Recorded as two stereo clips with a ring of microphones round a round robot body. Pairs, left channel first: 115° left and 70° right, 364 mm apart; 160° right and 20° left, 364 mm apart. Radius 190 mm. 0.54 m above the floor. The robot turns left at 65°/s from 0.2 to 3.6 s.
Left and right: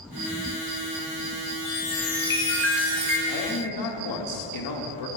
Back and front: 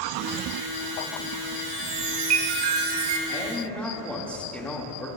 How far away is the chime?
About 1.6 m.